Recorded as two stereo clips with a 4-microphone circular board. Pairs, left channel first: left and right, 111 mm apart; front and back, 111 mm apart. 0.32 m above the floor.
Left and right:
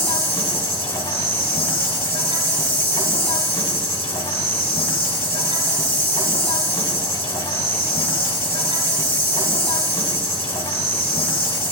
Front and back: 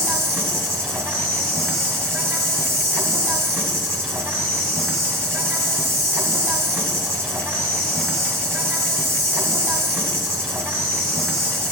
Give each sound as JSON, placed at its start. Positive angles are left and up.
{"t": 0.0, "sound": "an insect", "azimuth_deg": 110, "distance_m": 1.4}